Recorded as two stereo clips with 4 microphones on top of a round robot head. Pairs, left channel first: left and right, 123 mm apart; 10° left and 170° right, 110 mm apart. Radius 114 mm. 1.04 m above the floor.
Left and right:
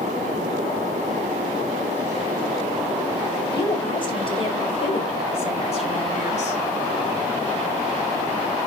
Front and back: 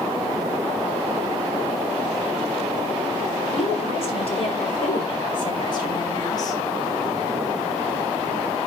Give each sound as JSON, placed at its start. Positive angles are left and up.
{"t": 3.5, "sound": "a woman speaking", "azimuth_deg": 40, "distance_m": 6.5}